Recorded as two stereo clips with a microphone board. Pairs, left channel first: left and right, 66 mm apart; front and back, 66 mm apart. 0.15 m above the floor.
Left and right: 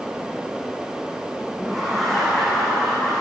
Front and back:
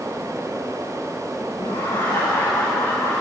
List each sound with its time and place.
1.6 s laughter: straight ahead, 8 m; by 3.2 s 15° left, 7.5 m